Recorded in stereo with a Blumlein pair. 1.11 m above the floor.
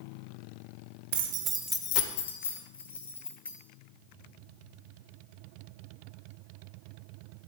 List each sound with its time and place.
1.1 s keys jangling: 55° right, 0.9 m; by 3.5 s 80° left, 2.5 m